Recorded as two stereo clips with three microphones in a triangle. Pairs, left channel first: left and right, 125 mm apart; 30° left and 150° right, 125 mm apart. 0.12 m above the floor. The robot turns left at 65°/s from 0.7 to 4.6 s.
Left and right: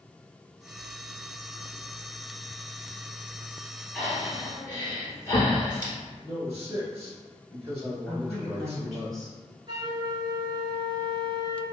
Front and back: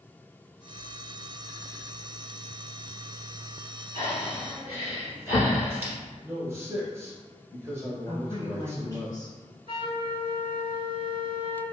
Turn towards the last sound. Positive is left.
turn(degrees=-130)